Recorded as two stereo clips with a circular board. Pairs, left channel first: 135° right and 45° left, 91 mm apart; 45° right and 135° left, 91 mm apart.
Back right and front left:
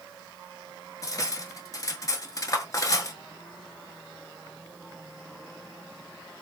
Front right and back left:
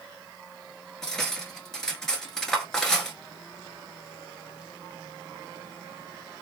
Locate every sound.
1.0 s cutlery clinking: 125° right, 0.9 m